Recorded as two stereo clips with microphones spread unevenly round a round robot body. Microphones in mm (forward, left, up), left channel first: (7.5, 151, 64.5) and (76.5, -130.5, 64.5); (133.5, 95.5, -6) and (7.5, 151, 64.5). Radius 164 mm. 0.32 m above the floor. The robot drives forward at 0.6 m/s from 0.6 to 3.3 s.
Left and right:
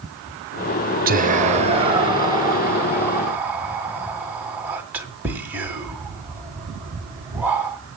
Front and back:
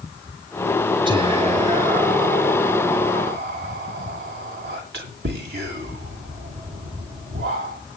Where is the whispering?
120° right, 1.1 m; by 7.8 s 160° right, 2 m.